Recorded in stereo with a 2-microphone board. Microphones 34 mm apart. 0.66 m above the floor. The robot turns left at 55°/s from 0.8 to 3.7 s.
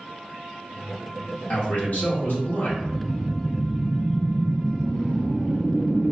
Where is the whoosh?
25° left, 0.7 m; by 6.1 s 20° right, 0.7 m.